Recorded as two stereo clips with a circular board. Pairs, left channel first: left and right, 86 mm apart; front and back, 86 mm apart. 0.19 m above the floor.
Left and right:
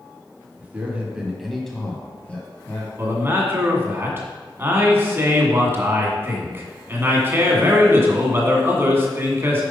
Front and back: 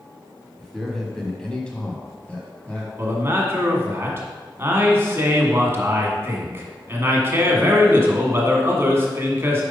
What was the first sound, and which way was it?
A man speaking, 85° right.